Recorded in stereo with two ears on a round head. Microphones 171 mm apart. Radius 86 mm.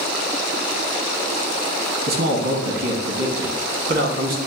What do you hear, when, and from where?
2.1 s a man speaking: 50° right (ahead or behind), 1.4 m